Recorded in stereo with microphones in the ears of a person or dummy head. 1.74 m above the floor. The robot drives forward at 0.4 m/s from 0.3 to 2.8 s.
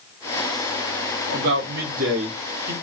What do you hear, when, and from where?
1.3 s a man speaking: 60° right (ahead or behind), 1.3 m